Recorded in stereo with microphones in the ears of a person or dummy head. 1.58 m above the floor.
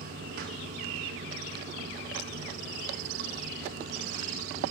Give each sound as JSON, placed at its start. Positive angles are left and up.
{"t": 0.0, "sound": "running water", "side_deg": -45, "distance_m": 1.1}